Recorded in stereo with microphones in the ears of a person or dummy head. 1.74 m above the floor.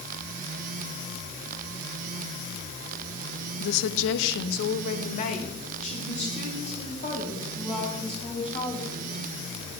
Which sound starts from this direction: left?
A woman speaking, at 3.6 s.